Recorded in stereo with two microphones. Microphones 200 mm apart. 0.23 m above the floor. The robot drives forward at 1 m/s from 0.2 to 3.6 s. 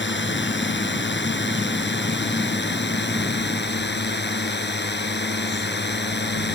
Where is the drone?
65° left (ahead or behind); by 6.6 s 60° left (ahead or behind).